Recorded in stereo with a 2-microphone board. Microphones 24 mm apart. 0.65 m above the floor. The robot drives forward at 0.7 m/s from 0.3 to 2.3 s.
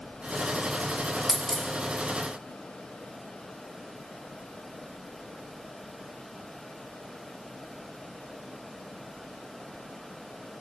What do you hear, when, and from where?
1.3 s a dropped coin: 15° left (ahead or behind), 1.0 m; by 1.7 s 10° left (ahead or behind), 1.2 m